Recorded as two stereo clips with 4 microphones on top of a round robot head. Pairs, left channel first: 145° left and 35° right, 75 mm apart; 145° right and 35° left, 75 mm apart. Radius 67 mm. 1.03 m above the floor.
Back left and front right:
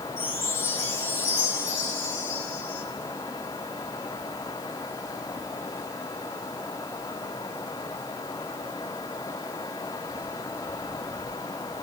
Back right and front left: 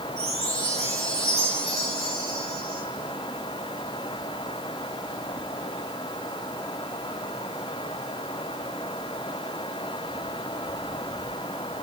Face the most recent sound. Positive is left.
turn(degrees=85)